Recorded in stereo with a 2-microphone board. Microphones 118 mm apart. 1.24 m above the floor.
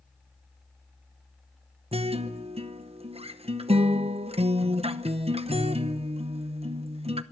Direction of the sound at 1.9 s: 60° right (ahead or behind).